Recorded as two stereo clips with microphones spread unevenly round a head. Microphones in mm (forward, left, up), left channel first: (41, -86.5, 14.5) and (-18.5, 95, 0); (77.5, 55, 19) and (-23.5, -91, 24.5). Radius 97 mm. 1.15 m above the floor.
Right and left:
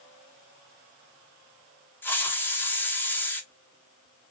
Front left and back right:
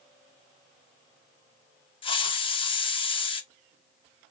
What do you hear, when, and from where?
2.0 s a hiss: 10° left, 0.6 m